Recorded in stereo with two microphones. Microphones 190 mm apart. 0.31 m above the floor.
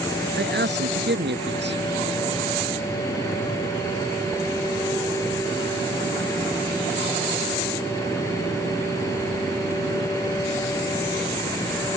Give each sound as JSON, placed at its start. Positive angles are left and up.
{"t": 0.4, "sound": "a man speaking", "side_deg": -70}